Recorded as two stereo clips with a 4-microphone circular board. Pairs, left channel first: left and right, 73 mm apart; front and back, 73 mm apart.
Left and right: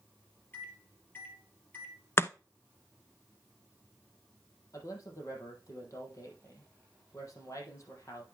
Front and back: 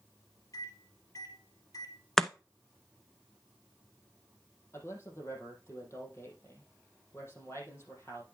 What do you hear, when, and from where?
0.5 s a microwave: 30° left, 2.5 m
2.2 s chopping: 80° left, 0.5 m
4.7 s a man speaking: 50° left, 4.5 m